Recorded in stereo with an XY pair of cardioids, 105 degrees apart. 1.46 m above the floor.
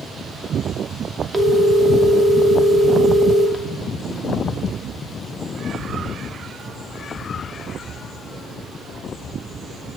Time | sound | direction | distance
1.3 | a phone ringing | 20° right | 2.5 m